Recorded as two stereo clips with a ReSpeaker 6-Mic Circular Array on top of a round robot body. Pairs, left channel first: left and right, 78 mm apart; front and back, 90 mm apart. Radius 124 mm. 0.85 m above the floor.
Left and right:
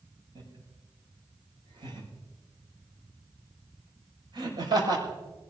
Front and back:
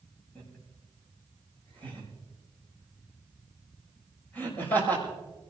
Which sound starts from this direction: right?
Laughter, at 0.3 s.